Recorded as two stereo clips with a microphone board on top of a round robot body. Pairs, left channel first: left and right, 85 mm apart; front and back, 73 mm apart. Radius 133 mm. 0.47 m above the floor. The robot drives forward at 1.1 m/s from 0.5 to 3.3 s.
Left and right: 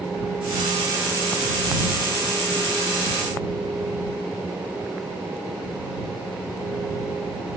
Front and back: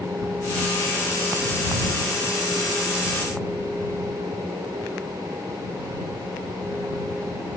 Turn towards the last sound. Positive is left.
No sound to turn to.